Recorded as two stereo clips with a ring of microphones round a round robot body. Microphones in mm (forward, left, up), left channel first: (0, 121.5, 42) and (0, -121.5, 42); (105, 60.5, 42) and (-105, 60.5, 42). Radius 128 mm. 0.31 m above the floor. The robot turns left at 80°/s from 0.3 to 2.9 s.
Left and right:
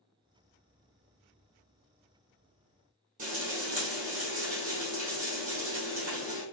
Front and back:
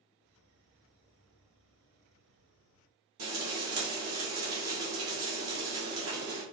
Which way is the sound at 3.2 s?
150° right.